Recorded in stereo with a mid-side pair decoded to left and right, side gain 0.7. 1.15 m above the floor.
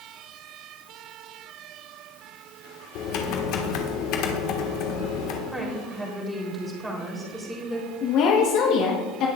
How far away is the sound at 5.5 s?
About 3.5 m.